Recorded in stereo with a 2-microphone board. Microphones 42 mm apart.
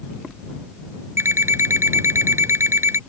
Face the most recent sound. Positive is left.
turn(degrees=-80)